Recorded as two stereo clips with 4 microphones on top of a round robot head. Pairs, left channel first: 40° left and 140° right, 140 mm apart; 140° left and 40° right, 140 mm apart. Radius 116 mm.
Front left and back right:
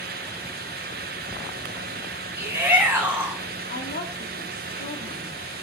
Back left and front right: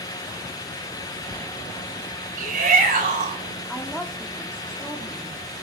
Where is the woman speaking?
55° left, 2.0 m.